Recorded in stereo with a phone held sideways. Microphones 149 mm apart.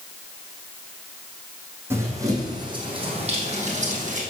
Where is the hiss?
I don't hear a hiss.